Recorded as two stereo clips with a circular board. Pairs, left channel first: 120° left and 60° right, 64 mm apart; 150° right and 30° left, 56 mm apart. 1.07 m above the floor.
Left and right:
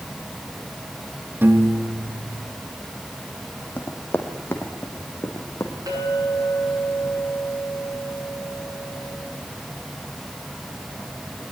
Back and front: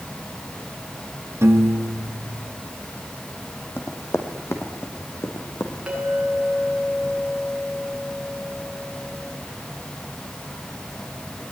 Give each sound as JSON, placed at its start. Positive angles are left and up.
{"t": 1.4, "sound": "a piano", "azimuth_deg": -5, "distance_m": 1.7}
{"t": 3.8, "sound": "running footsteps", "azimuth_deg": 180, "distance_m": 3.0}
{"t": 5.9, "sound": "a clink", "azimuth_deg": -35, "distance_m": 9.5}